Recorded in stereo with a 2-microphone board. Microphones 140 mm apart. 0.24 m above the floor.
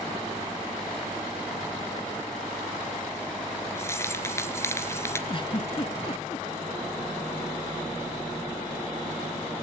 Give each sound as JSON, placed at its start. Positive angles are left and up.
{"t": 3.8, "sound": "keys jangling", "side_deg": 20, "distance_m": 2.0}
{"t": 5.3, "sound": "a giggle", "side_deg": 40, "distance_m": 1.1}